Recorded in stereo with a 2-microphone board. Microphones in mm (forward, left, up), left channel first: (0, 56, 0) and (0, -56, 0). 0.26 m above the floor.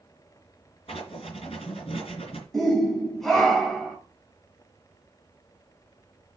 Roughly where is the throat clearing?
No throat clearing in this recording.